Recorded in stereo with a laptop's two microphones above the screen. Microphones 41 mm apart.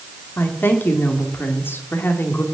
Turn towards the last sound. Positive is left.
turn(degrees=60)  # may be behind; listen again after turning